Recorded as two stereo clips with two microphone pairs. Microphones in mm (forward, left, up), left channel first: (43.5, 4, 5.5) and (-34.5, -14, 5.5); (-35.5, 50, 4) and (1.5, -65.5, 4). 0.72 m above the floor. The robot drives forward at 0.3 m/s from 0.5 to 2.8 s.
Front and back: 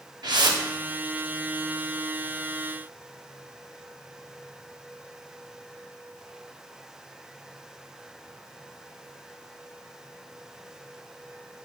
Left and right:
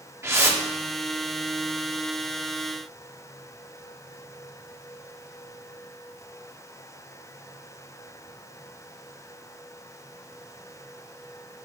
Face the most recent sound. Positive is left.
turn(degrees=-155)